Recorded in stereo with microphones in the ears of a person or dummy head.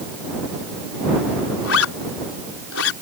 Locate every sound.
1.6 s a zipper: 85° left